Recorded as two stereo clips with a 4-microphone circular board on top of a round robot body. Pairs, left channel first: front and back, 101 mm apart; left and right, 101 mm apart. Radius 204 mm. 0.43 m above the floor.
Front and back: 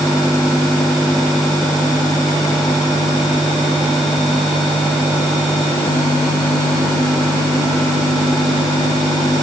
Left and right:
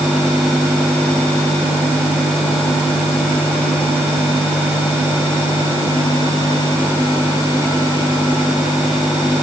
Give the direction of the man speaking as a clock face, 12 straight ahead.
No man speaking in this recording.